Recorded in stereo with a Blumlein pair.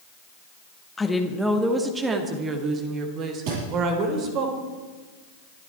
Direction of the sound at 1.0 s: 10° left.